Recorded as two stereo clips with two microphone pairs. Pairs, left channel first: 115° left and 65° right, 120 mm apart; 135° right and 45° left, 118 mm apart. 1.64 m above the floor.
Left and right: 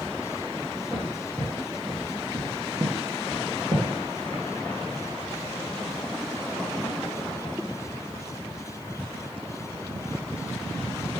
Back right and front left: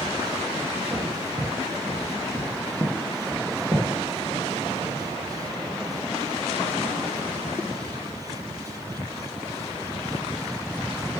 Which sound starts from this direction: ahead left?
Footsteps, at 0.9 s.